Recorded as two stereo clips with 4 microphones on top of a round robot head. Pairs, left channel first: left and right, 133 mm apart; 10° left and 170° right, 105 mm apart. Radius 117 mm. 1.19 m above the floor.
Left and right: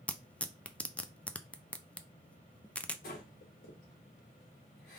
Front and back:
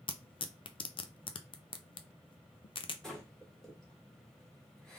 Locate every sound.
0.1 s tearing paper: 10° left, 0.6 m
3.0 s breathing: 95° left, 1.6 m